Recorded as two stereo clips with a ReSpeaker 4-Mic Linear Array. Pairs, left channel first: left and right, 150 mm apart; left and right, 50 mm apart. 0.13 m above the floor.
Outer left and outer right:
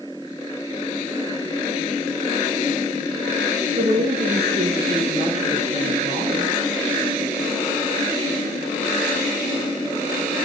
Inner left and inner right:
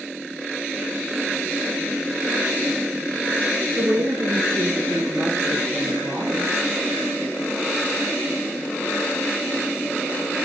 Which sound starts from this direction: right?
A woman speaking, at 3.8 s.